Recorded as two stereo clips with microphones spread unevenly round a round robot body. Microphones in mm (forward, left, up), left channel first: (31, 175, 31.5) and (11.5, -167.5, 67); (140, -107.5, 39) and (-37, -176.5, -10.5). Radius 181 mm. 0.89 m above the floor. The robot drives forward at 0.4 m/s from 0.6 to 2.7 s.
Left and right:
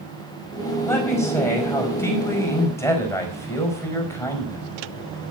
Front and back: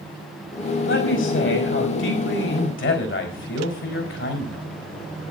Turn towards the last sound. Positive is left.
turn(degrees=5)